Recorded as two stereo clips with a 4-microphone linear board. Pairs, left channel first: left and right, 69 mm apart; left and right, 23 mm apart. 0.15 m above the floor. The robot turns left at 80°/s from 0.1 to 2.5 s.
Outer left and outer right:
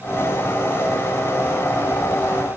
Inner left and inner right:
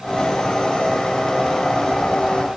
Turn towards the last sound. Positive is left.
No sound to turn to.